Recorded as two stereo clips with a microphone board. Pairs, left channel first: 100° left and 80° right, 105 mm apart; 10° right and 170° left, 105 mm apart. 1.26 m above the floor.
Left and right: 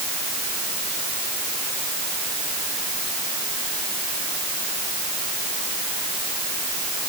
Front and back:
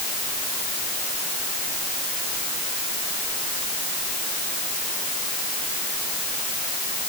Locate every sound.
Only background noise.